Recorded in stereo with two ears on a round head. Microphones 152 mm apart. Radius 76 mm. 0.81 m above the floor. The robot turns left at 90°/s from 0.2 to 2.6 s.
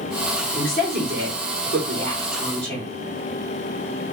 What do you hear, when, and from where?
0.6 s a woman speaking: straight ahead, 2 m; by 2.9 s 175° left, 2 m